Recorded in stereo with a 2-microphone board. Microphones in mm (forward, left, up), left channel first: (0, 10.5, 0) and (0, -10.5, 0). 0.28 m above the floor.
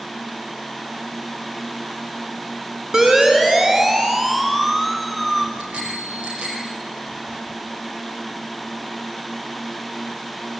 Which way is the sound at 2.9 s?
45° right (ahead or behind).